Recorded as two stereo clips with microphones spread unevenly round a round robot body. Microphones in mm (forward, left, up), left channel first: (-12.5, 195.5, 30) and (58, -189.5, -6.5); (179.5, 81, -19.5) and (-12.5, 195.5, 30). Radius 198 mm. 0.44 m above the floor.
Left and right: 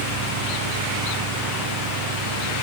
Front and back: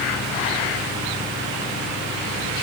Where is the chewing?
No chewing in this recording.